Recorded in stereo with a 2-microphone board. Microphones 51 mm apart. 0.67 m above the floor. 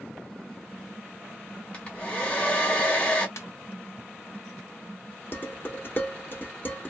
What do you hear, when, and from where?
1.7 s a hair dryer: 25° left (ahead or behind), 1.4 m
3.4 s a ringtone: 85° left, 1.2 m
5.3 s dishes clattering: 40° left (ahead or behind), 1.1 m